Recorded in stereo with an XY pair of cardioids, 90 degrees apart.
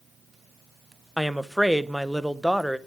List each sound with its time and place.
1.2 s a woman speaking: 5° right, 0.9 m